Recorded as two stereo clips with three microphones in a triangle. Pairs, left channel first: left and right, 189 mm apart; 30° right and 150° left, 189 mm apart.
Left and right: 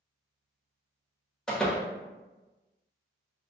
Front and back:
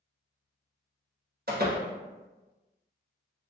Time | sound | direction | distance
1.5 | a door slam | 175° left | 0.8 m